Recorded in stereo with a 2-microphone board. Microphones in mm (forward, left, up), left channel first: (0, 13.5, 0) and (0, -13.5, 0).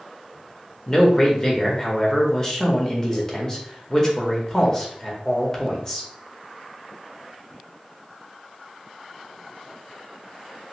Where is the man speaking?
20° left (ahead or behind), 0.9 m.